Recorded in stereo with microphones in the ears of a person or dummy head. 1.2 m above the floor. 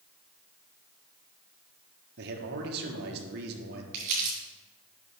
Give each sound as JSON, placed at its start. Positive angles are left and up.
{"t": 2.2, "sound": "a man speaking", "side_deg": -55, "distance_m": 1.3}
{"t": 3.9, "sound": "crumpling", "side_deg": -45, "distance_m": 3.0}